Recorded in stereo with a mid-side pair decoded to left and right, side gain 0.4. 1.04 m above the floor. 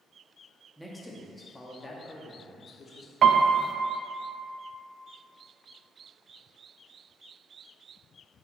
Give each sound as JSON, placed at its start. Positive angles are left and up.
{"t": 0.8, "sound": "a man speaking", "azimuth_deg": 0, "distance_m": 1.4}
{"t": 3.2, "sound": "a piano", "azimuth_deg": -60, "distance_m": 0.6}